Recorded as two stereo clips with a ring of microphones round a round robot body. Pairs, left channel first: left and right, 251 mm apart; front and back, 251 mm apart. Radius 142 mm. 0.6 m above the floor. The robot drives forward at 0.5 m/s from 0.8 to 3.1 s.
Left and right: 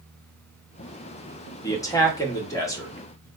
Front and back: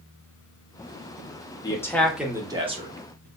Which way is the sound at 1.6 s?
40° left.